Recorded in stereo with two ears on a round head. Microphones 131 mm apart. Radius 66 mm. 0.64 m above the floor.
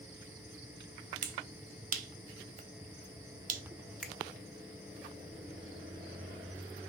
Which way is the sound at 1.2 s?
55° right (ahead or behind).